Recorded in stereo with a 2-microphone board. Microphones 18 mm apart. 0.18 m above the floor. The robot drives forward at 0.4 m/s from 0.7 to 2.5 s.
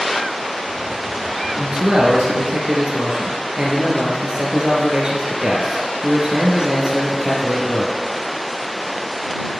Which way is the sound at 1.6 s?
60° right (ahead or behind).